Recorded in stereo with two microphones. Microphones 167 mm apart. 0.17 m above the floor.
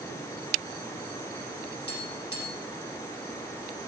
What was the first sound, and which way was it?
Tapping, 75° left (ahead or behind).